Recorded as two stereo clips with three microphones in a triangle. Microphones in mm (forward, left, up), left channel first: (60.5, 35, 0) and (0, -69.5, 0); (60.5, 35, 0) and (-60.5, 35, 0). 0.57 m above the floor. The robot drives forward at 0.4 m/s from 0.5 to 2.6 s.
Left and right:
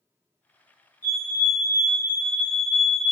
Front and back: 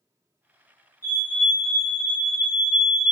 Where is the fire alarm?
140° right, 2.0 m; by 3.1 s 155° right, 2.5 m.